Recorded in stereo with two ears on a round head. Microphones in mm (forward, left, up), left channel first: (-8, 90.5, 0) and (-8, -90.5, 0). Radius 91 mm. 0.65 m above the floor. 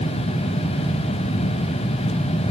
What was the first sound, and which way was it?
Only background noise.